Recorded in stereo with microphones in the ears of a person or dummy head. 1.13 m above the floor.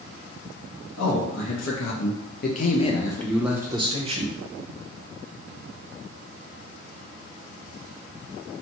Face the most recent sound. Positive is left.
turn(degrees=-40)  # may be behind; listen again after turning